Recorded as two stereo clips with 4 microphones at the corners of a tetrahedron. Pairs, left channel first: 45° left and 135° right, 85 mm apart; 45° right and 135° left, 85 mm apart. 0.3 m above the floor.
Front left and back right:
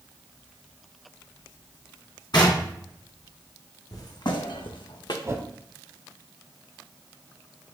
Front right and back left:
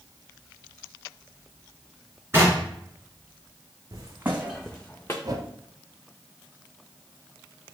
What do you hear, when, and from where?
2.3 s knocking: 75° left, 2 m
3.9 s footsteps: 90° left, 1.0 m; by 5.1 s 15° left, 1.1 m
5.2 s a whoosh: 170° left, 0.7 m